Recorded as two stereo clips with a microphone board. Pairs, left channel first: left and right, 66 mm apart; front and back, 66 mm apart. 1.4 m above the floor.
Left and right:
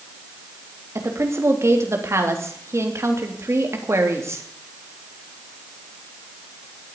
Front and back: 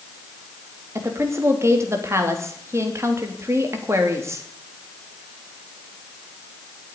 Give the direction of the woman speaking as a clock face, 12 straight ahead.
5 o'clock.